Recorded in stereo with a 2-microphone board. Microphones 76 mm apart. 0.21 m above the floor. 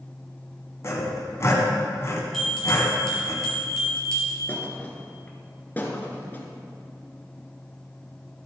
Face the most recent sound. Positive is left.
turn(degrees=25)  # may be behind; listen again after turning